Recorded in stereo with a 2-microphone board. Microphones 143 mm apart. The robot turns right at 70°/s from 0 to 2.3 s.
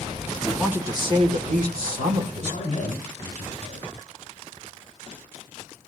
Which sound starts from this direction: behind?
A woman speaking, at 0.4 s.